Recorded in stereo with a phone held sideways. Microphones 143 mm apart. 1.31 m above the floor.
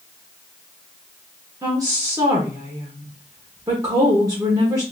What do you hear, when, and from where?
1.6 s a woman speaking: 25° right (ahead or behind), 1.2 m